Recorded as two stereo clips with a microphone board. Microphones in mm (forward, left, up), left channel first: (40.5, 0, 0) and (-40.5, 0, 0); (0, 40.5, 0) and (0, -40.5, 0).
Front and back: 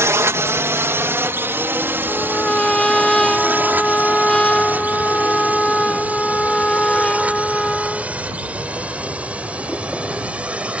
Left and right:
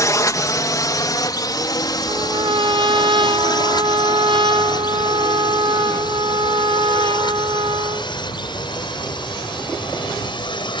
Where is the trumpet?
80° right.